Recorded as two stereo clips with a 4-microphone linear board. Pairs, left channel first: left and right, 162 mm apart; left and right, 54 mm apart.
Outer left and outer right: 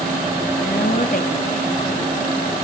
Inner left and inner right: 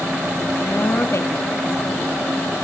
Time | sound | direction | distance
0.6 | a woman speaking | 80° left | 3 m